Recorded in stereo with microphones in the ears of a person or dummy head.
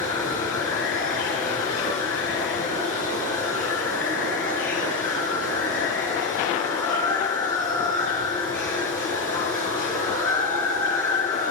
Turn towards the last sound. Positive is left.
turn(degrees=15)  # may be behind; listen again after turning